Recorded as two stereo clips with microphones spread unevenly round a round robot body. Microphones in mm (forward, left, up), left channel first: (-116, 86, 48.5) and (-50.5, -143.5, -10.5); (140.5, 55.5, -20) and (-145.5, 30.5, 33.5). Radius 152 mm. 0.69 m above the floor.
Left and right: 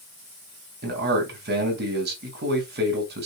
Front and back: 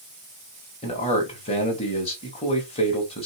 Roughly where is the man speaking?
Ahead right.